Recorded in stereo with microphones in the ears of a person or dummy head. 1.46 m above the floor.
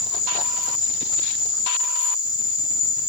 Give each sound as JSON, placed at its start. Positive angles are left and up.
{"t": 0.0, "sound": "an insect", "side_deg": -5, "distance_m": 1.1}